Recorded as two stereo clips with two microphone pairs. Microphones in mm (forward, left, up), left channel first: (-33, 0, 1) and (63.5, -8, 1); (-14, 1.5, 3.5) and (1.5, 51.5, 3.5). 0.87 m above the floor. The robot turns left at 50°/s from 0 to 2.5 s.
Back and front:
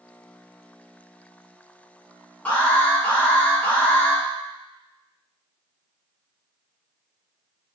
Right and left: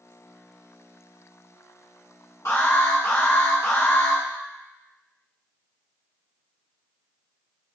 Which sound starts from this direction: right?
An alarm, at 2.5 s.